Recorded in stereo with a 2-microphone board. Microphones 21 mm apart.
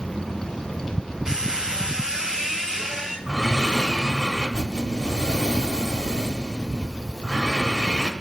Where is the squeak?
35° right (ahead or behind), 2 m.